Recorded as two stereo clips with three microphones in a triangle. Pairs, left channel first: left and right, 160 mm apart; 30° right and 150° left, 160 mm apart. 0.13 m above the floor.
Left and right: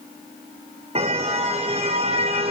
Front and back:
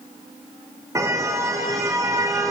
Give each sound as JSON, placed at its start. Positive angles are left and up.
{"t": 0.9, "sound": "a car horn", "azimuth_deg": -140, "distance_m": 4.5}